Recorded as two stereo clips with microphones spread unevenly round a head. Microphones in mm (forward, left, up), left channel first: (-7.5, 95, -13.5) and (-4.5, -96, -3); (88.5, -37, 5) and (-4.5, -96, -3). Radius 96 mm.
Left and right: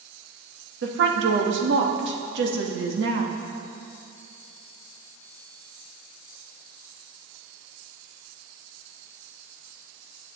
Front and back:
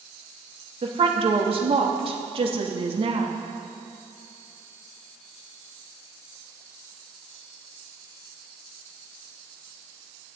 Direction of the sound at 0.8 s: 120° right.